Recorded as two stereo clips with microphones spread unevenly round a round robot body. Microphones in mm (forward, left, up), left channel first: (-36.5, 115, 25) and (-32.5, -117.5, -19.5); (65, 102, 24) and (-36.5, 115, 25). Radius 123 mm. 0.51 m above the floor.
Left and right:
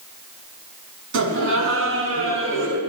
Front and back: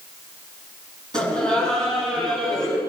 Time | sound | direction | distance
1.1 | laughter | 120° right | 5.5 m